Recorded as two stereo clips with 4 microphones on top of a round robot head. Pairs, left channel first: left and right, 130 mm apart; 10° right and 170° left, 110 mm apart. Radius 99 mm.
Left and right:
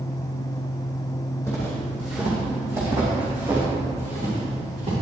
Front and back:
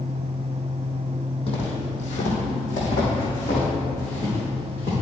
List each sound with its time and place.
1.5 s footsteps: 15° left, 3 m; by 4.9 s 45° right, 5.5 m